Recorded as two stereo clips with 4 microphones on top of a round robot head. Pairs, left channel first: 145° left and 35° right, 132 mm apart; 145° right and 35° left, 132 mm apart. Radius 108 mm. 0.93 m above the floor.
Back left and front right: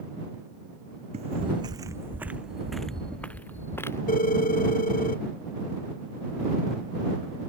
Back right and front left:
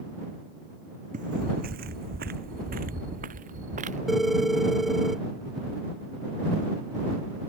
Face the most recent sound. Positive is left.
turn(degrees=125)